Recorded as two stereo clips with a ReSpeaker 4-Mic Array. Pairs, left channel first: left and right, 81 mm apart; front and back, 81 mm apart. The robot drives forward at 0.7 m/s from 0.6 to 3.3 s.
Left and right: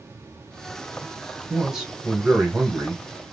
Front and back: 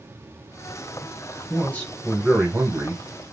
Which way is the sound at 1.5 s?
15° right.